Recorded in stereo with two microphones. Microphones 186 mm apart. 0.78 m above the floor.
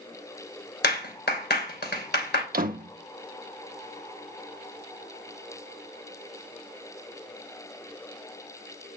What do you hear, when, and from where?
0.8 s a clap: 70° left (ahead or behind), 3 m
2.5 s a door slam: 55° right (ahead or behind), 0.8 m